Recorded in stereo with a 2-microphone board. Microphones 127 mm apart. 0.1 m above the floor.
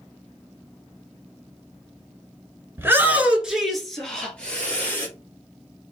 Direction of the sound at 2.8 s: 20° right (ahead or behind).